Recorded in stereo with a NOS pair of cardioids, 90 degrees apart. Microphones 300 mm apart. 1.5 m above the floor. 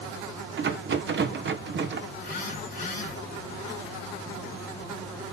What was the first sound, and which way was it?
A rattle, 40° right.